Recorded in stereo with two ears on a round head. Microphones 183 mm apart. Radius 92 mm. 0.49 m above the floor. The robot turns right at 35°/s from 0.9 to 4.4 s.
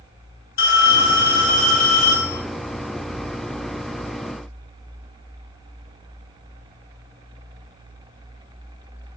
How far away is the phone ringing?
About 1.1 m.